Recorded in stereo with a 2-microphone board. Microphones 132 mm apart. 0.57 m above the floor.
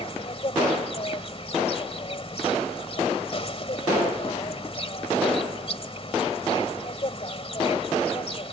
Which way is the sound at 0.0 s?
45° left (ahead or behind).